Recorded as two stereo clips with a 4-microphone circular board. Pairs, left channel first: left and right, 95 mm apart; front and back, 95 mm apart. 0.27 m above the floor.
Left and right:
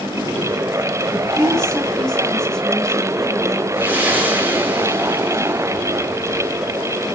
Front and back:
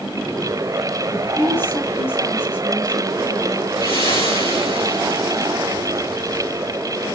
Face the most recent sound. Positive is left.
turn(degrees=-20)